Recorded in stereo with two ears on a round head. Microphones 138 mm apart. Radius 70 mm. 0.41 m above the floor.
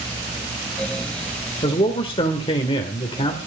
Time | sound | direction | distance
1.6 | a man speaking | 35° left (ahead or behind) | 1.7 m